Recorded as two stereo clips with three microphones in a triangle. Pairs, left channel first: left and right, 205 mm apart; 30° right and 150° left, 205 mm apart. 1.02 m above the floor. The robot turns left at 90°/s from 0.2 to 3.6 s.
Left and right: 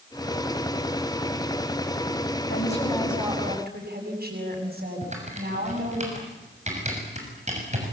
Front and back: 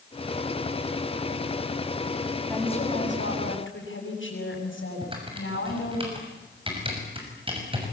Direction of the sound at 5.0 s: 145° right.